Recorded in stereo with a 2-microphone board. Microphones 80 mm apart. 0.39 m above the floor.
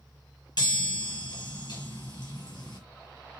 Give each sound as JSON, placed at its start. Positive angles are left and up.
{"t": 0.6, "sound": "a chime", "side_deg": 60, "distance_m": 5.5}